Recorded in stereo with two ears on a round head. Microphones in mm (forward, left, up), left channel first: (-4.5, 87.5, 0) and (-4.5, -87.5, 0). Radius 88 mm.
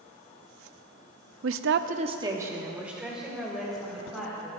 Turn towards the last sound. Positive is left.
turn(degrees=0)  # may be behind; listen again after turning